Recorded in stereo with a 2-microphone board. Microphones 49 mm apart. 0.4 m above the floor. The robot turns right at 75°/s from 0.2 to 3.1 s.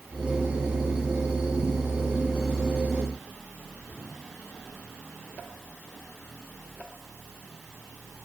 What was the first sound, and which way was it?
Only background noise.